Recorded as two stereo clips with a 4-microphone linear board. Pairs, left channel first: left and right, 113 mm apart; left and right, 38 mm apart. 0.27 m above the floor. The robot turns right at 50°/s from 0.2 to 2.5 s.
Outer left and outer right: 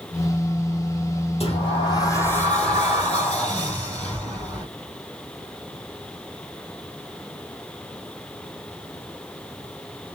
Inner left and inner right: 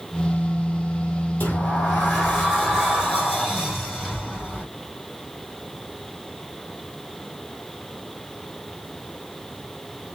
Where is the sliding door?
115° left, 2.0 m; by 4.7 s 170° left, 2.0 m.